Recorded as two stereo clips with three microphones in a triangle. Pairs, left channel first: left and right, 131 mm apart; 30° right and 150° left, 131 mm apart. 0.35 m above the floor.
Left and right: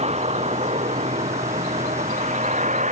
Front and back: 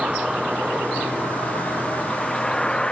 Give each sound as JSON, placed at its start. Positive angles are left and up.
{"t": 0.0, "sound": "a vehicle", "azimuth_deg": -125}